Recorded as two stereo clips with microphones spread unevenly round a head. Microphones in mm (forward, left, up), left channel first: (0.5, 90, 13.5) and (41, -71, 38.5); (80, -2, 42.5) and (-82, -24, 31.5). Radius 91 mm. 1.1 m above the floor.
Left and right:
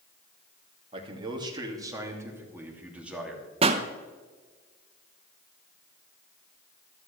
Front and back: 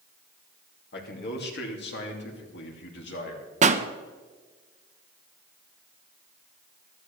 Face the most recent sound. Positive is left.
turn(degrees=-135)